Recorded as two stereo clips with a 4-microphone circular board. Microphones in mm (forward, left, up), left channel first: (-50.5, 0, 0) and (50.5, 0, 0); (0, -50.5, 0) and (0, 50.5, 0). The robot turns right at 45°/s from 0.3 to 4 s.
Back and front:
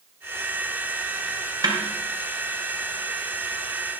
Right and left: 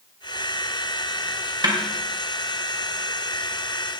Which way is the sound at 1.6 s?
45° left.